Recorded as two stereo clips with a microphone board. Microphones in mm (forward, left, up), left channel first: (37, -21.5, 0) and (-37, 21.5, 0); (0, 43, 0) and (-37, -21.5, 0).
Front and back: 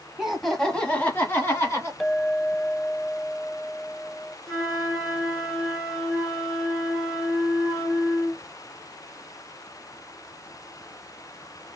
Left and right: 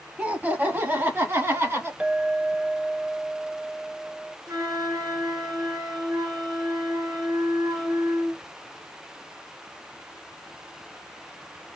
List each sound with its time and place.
0.2 s laughter: 140° right, 1.2 m; by 1.9 s 80° right, 2.0 m
2.0 s a clink: 115° right, 0.5 m
4.5 s a flute: 125° right, 2.0 m